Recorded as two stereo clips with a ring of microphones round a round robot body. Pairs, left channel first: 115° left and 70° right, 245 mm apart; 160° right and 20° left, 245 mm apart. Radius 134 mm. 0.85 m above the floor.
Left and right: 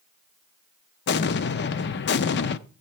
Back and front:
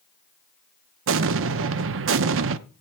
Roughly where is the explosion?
Ahead left.